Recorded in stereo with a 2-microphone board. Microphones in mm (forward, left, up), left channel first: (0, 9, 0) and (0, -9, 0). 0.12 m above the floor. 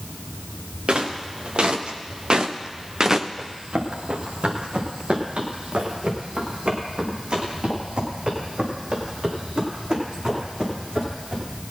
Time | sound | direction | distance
0.9 | footsteps | 80° right | 2.5 m
3.4 | running footsteps | 80° right | 4 m